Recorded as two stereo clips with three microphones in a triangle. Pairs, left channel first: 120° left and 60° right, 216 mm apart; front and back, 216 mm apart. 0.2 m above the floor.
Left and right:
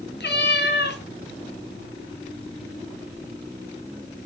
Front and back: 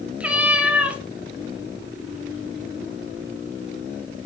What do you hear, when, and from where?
0.2 s a cat meowing: 95° left, 1.0 m